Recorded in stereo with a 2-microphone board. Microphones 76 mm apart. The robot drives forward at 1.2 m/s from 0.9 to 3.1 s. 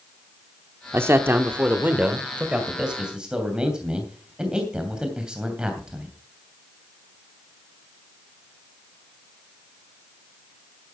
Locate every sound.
0.9 s a man speaking: 30° right (ahead or behind), 1.0 m; by 6.2 s 10° right (ahead or behind), 3 m